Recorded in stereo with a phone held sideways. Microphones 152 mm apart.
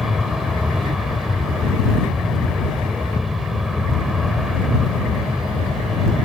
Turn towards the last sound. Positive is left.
turn(degrees=0)  # may be behind; listen again after turning